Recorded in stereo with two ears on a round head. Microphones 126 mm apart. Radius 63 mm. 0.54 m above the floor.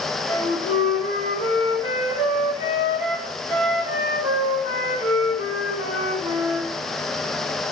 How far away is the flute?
About 2 m.